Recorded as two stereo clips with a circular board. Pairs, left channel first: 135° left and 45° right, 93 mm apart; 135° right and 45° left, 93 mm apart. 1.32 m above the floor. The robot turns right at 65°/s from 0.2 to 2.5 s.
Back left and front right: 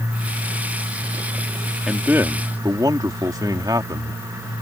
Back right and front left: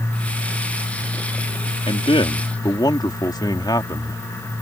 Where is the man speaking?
135° right; by 4.2 s 90° right.